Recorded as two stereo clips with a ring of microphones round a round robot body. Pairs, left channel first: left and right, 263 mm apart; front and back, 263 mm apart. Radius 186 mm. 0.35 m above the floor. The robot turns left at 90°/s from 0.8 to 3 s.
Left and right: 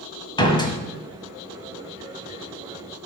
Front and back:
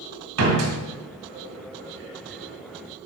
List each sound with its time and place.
0.4 s a door slam: 165° left, 1.7 m